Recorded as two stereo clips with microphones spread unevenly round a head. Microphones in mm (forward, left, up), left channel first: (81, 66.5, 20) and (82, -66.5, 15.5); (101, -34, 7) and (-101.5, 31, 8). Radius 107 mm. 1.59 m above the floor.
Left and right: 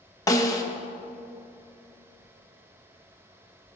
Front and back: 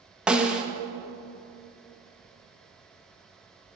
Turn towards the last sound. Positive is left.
turn(degrees=80)